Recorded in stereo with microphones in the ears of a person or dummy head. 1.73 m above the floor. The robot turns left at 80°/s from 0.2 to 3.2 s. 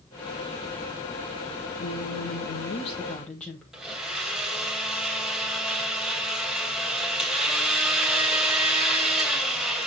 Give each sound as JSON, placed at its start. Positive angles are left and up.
{"t": 1.8, "sound": "a woman speaking", "azimuth_deg": 120, "distance_m": 1.7}
{"t": 3.7, "sound": "a blender", "side_deg": -5, "distance_m": 2.5}